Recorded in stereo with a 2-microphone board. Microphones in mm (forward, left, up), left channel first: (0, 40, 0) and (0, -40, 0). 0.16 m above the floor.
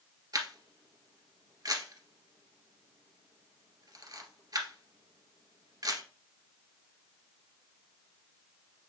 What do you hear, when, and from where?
0.3 s a camera shutter: 55° right (ahead or behind), 1.7 m